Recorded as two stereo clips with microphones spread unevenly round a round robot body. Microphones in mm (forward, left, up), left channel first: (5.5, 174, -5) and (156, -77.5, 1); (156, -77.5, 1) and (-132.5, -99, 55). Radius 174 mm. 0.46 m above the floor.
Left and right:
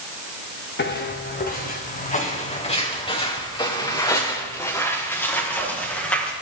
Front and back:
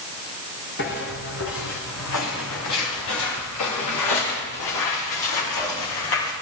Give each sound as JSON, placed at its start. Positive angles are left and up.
{"t": 0.8, "sound": "footsteps", "azimuth_deg": 70, "distance_m": 2.5}